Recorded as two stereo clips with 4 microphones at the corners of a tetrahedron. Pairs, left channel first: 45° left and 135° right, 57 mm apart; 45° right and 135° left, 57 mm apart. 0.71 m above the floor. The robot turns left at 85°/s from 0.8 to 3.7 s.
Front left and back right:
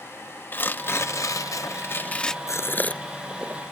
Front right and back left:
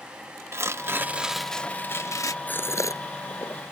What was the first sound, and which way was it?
Tearing paper, 95° left.